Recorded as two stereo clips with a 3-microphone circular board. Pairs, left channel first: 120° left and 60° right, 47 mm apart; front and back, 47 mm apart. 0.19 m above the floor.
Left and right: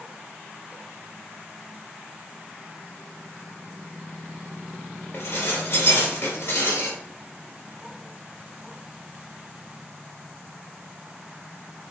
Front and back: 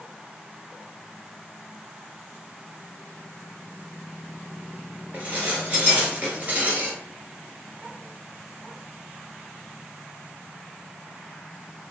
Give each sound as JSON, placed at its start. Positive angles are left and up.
{"t": 5.1, "sound": "dishes clattering", "azimuth_deg": 120, "distance_m": 1.9}